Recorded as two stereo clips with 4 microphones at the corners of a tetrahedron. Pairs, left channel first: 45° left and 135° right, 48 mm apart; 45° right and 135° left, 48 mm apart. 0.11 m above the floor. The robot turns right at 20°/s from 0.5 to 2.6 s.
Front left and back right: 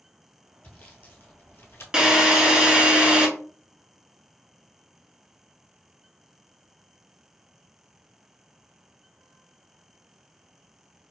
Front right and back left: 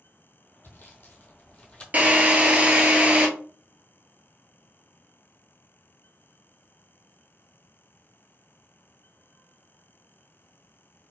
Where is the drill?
160° left, 0.9 m; by 3.3 s 175° left, 0.9 m.